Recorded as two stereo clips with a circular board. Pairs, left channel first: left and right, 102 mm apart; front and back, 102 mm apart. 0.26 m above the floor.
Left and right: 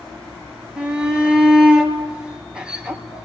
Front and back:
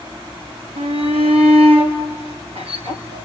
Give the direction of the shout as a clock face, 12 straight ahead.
6 o'clock.